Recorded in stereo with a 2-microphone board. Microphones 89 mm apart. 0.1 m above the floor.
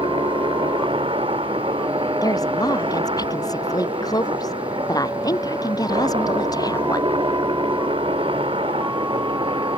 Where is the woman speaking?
45° left (ahead or behind).